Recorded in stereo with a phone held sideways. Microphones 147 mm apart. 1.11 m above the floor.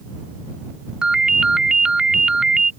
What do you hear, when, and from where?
1.0 s a ringtone: 5° right (ahead or behind)